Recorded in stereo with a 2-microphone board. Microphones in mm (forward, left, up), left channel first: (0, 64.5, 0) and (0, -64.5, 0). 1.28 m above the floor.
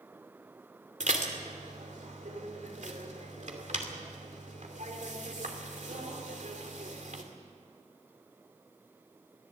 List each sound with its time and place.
1.0 s dishes clattering: 70° right (ahead or behind), 2.5 m